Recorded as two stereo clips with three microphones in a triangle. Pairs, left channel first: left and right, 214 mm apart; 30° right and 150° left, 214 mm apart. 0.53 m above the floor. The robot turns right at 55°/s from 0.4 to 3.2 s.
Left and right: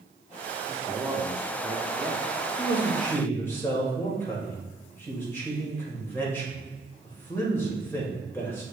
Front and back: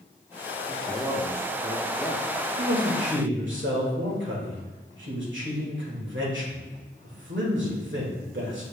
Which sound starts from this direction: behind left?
A man speaking, at 2.6 s.